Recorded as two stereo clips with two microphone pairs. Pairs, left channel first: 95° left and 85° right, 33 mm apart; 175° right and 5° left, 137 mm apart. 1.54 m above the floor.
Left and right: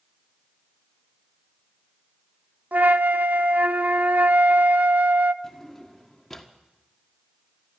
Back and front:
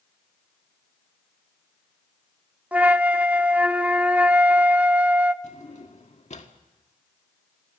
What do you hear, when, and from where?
2.7 s a flute: 70° right, 0.6 m
5.4 s a drawer: 175° left, 1.6 m